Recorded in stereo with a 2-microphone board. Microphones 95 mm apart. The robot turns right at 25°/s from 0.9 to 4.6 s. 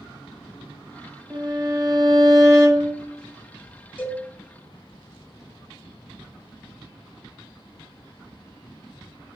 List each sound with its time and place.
1.3 s a violin: 75° right, 0.8 m; by 2.9 s 35° right, 0.8 m
4.0 s a cowbell: 15° left (ahead or behind), 1.1 m; by 4.2 s 10° left (ahead or behind), 1.1 m